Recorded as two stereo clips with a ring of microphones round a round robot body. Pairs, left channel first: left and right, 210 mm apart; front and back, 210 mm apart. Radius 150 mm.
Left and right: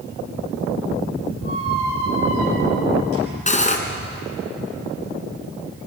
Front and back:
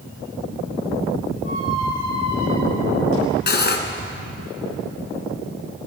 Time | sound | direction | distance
1.4 | a squeak | 130° right | 7 m
3.5 | cutlery clinking | 35° left | 3 m